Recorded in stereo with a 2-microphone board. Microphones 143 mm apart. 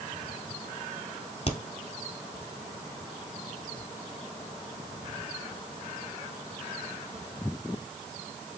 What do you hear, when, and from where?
1.5 s a crack: 45° left (ahead or behind), 1.6 m